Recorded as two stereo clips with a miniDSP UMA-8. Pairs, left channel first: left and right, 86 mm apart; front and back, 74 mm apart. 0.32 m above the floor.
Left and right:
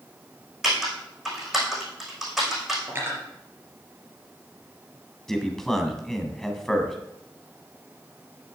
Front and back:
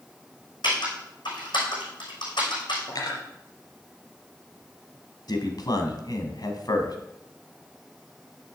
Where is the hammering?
I don't hear hammering.